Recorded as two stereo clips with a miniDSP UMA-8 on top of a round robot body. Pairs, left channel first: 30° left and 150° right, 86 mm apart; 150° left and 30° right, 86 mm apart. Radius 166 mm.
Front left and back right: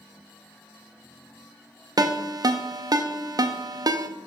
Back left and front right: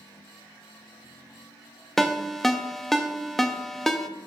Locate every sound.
2.0 s a ringtone: 125° right, 0.6 m